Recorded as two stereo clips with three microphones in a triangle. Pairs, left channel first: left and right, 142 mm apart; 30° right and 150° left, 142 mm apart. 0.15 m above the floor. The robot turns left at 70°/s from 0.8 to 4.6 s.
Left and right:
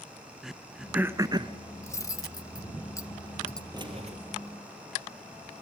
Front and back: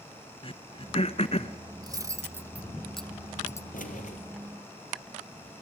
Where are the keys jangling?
30° right, 3 m; by 4.2 s 60° right, 3 m.